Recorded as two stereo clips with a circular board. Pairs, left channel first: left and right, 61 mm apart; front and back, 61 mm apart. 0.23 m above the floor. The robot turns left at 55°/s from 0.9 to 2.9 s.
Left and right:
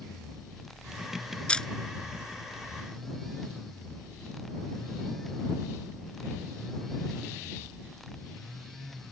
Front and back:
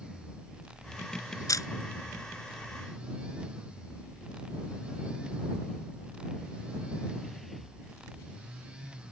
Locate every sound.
1.5 s a camera shutter: 20° left; by 1.7 s 10° left